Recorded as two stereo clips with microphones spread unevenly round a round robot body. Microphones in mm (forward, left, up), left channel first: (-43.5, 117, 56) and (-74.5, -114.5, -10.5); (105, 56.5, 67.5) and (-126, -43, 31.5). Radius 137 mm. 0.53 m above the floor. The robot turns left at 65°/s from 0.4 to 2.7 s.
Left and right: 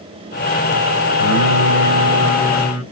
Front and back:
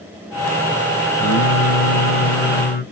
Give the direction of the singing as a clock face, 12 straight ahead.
10 o'clock.